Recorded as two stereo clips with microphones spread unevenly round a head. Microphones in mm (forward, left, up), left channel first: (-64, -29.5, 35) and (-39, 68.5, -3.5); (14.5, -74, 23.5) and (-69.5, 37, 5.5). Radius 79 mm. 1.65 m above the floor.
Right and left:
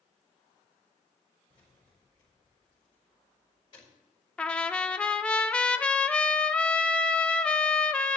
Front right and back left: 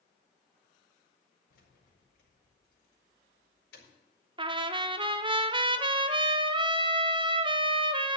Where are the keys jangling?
45° right, 5 m.